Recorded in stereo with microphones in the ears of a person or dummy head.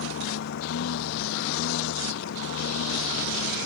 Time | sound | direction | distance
0.0 | a lawn mower | 65° left (ahead or behind) | ?